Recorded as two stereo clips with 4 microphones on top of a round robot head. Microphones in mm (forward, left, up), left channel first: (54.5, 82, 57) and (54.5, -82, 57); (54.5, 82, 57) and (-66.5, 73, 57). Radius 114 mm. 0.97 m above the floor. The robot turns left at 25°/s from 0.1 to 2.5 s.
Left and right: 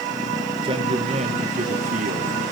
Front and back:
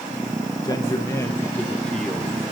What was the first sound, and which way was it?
A man speaking, 45° right.